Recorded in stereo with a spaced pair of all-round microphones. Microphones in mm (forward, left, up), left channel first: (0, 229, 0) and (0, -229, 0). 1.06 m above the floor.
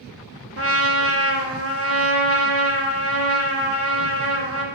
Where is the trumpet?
30° right (ahead or behind), 0.6 m.